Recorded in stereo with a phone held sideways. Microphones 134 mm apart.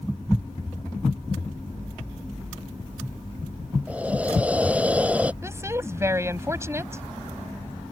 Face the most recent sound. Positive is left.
turn(degrees=-20)  # may be behind; listen again after turning